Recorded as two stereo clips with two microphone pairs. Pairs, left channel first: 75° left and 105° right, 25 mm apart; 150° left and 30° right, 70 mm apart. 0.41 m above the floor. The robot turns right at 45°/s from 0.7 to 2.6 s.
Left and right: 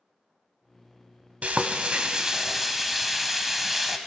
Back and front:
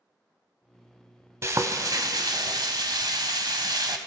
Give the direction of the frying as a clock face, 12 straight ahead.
3 o'clock.